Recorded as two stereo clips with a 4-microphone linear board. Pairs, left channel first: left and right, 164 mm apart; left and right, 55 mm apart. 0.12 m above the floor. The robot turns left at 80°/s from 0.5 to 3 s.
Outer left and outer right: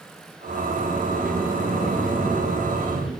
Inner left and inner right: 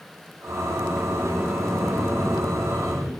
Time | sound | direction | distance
0.5 | a sliding door | 75° right | 2.5 m